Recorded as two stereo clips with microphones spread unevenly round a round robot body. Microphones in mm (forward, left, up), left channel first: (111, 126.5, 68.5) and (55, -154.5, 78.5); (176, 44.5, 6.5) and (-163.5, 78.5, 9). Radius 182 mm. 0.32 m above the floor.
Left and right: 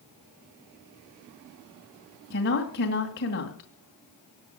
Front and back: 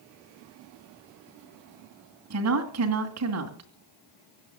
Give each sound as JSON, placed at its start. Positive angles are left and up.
{"t": 2.3, "sound": "a woman speaking", "azimuth_deg": 135, "distance_m": 2.5}